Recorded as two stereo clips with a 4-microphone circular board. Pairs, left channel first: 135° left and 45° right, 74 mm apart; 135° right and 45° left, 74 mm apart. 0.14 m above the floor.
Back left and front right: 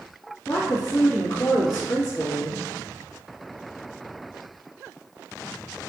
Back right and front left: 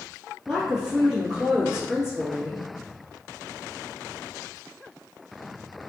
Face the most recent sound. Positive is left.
turn(degrees=135)